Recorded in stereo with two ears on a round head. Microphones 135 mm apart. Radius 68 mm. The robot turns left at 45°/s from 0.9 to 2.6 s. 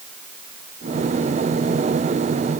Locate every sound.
Only background noise.